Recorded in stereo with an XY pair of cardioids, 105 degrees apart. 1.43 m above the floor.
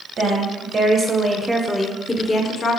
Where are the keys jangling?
I don't hear keys jangling.